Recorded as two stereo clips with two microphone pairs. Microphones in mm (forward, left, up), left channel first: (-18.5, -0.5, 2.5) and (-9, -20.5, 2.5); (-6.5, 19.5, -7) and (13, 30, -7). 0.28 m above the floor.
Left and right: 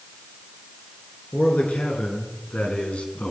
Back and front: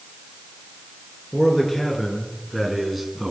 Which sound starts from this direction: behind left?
A man speaking, at 1.3 s.